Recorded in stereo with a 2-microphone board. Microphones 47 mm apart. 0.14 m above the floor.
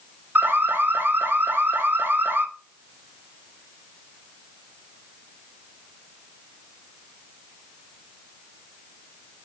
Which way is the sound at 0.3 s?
45° right (ahead or behind).